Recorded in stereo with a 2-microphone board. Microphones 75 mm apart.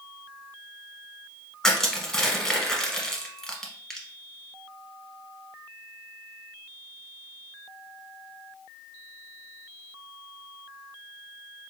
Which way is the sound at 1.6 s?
5° left (ahead or behind).